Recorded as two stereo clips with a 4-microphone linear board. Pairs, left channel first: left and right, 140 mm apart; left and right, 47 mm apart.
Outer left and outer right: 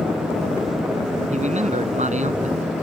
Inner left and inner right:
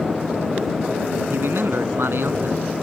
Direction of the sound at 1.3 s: 55° right (ahead or behind).